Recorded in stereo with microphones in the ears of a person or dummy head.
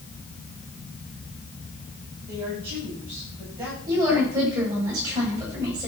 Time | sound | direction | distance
2.3 | a woman speaking | 25° right (ahead or behind) | 9.5 m
3.9 | a woman speaking | 20° right (ahead or behind) | 8 m